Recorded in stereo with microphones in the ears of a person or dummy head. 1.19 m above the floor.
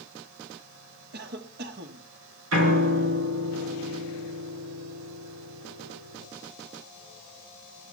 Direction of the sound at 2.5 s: 75° right (ahead or behind).